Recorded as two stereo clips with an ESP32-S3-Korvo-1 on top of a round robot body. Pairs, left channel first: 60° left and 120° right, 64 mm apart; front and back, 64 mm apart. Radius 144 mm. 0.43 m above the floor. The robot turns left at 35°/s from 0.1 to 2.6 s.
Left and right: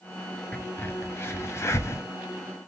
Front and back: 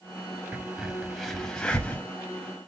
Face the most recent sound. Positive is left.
turn(degrees=40)